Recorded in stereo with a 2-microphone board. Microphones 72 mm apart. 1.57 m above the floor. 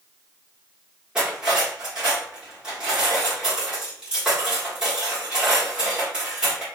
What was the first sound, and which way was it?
Cutlery clinking, 15° right (ahead or behind).